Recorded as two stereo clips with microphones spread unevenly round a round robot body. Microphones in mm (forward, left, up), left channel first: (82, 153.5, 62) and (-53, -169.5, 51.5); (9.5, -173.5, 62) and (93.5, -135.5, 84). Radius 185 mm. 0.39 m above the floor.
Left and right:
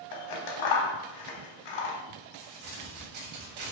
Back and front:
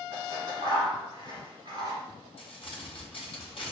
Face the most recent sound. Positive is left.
turn(degrees=-140)